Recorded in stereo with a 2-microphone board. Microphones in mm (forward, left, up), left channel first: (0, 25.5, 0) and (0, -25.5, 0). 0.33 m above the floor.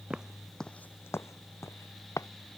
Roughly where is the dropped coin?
I don't hear a dropped coin.